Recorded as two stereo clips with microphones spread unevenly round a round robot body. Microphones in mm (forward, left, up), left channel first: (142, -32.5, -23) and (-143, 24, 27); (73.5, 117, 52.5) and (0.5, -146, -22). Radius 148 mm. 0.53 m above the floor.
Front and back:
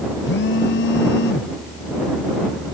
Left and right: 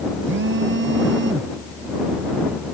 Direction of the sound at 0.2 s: 60° right.